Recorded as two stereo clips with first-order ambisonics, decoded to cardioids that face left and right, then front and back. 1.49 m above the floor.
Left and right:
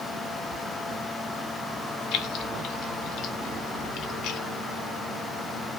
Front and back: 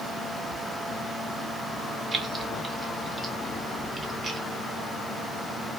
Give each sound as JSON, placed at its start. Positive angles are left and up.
{"t": 2.1, "sound": "keys jangling", "azimuth_deg": 115, "distance_m": 0.7}